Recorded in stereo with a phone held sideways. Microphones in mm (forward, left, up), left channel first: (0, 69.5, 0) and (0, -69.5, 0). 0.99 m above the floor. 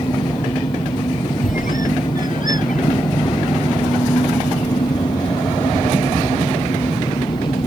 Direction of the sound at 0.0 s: 30° left (ahead or behind).